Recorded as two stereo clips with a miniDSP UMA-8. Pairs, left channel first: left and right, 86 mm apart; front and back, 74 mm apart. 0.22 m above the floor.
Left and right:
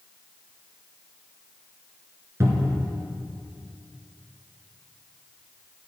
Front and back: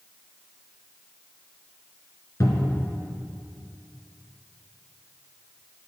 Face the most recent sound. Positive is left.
turn(degrees=-35)